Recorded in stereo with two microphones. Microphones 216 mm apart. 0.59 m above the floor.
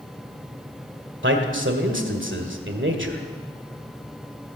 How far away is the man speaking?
About 1.9 m.